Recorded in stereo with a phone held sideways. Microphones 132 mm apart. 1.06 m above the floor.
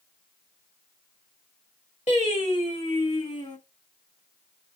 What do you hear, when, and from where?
2.1 s singing: 55° left (ahead or behind), 1.5 m